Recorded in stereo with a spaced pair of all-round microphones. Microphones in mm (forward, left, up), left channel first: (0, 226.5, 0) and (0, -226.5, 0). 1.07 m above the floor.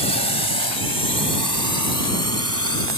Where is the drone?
65° right (ahead or behind); by 3.0 s 25° right (ahead or behind).